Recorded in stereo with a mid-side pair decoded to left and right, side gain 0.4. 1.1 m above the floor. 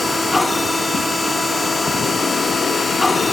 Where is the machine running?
15° left, 1.8 m.